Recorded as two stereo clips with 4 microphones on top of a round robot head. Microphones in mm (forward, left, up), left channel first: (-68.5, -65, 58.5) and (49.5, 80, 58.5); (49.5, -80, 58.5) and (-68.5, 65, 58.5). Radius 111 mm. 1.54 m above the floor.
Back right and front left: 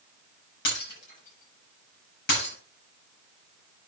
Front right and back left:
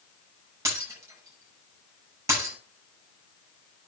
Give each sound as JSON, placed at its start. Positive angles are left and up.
{"t": 0.7, "sound": "breaking glass", "azimuth_deg": -155, "distance_m": 7.0}